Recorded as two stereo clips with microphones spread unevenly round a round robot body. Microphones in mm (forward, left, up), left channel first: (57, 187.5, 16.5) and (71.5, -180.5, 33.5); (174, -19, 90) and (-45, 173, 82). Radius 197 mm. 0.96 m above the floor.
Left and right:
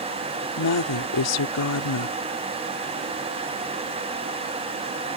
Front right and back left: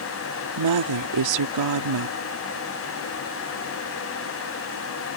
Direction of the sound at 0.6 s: 145° left.